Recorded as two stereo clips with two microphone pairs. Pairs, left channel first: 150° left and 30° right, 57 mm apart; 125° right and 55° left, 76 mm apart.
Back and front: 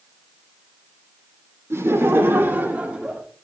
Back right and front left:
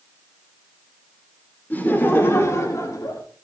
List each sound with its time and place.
1.7 s laughter: 60° right, 2.5 m; by 3.2 s 100° right, 1.8 m